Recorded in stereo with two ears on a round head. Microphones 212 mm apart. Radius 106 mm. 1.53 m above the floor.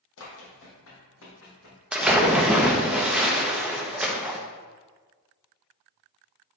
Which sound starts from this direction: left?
Running footsteps, at 0.2 s.